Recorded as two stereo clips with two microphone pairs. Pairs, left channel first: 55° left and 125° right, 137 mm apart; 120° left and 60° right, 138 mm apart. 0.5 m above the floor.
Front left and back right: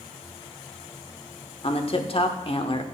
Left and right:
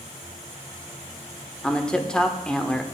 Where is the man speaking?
35° left, 1.0 m.